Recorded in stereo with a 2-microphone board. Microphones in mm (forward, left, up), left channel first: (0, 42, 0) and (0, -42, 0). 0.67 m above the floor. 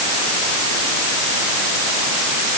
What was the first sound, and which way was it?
Only background noise.